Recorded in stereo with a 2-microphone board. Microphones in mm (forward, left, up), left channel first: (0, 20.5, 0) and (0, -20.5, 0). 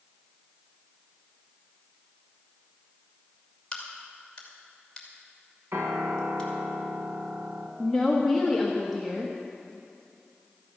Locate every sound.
3.7 s a crack: 20° left (ahead or behind), 2.5 m
5.7 s a piano: 80° right, 2 m
7.8 s a woman speaking: centre (ahead or behind), 1.2 m